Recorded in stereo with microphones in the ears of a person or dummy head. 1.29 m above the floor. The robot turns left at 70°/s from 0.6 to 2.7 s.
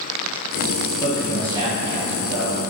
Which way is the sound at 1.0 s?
15° left.